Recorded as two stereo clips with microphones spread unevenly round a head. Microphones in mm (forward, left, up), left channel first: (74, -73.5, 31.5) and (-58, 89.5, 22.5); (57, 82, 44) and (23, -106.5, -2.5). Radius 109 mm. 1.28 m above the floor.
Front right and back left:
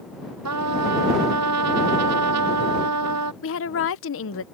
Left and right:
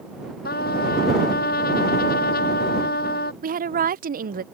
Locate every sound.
0.5 s a trumpet: 130° left
3.4 s a woman speaking: 70° right